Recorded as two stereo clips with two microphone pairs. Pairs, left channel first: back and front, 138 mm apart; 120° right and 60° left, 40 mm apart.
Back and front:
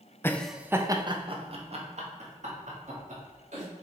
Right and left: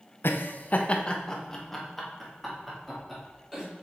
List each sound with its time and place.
0.2 s laughter: 105° right, 0.6 m; by 3.6 s 25° right, 3 m